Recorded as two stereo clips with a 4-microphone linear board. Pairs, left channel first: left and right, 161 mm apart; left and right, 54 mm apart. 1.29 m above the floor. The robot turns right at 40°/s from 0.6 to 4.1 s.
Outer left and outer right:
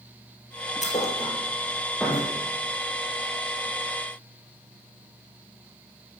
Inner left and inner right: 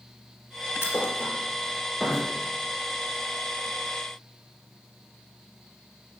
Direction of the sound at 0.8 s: 50° left (ahead or behind).